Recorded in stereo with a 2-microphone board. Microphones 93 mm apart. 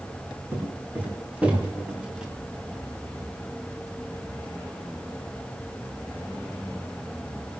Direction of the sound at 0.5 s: 20° right (ahead or behind).